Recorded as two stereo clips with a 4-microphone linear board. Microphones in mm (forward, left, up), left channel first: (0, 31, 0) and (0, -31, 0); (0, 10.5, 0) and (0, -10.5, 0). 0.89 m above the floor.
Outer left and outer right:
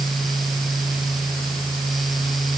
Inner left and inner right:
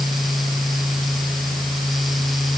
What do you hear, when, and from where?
Only background noise.